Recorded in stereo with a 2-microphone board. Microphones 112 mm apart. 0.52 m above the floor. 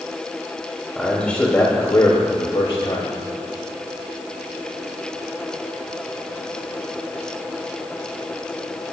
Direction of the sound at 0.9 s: 5° left (ahead or behind).